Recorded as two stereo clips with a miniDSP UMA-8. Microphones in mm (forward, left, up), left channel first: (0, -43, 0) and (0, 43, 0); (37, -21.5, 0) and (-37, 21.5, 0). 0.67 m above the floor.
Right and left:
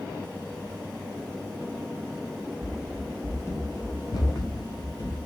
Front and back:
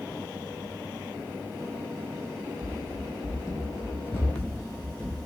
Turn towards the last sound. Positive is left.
turn(degrees=-115)